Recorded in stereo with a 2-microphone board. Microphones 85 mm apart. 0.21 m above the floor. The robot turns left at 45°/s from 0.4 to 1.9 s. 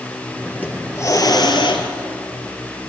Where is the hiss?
160° left, 2.5 m; by 1.9 s 105° left, 2.5 m.